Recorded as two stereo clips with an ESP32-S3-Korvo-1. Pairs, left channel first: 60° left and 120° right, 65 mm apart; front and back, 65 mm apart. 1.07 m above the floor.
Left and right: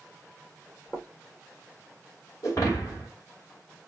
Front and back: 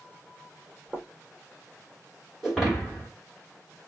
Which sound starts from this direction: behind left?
Footsteps, at 0.9 s.